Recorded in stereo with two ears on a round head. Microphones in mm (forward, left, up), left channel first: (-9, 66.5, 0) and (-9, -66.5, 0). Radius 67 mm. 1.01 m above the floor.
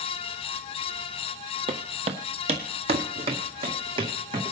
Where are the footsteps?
40° right (ahead or behind), 1.2 m; by 4.5 s 35° right (ahead or behind), 2.5 m.